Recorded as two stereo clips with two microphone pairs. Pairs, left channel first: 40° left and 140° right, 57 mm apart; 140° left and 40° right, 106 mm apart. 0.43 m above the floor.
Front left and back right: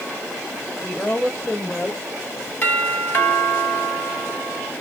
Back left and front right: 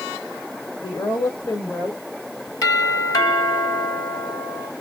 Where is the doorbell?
90° left, 2.5 m.